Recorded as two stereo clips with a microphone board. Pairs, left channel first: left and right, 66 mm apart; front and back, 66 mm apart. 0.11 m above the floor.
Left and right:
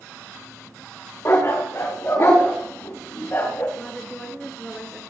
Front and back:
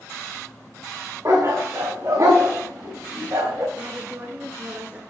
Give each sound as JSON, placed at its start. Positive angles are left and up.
{"t": 1.2, "sound": "a dog barking", "azimuth_deg": 135, "distance_m": 5.0}
{"t": 3.8, "sound": "a woman speaking", "azimuth_deg": 160, "distance_m": 1.3}